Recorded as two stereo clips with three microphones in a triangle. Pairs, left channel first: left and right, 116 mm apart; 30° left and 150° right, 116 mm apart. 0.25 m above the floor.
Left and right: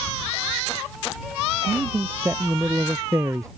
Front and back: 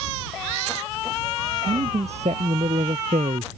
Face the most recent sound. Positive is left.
turn(degrees=-150)